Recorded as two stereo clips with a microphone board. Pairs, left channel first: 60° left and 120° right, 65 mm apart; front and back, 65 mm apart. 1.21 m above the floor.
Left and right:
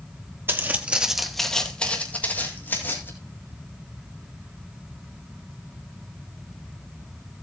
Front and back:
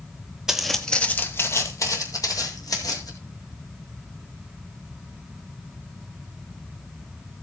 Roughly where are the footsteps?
Right.